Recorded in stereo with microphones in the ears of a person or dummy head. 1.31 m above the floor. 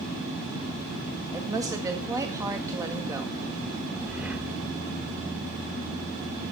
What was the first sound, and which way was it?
A woman speaking, 15° right (ahead or behind).